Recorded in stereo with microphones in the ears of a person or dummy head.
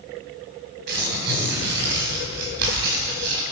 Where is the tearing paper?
55° right (ahead or behind), 3.5 m.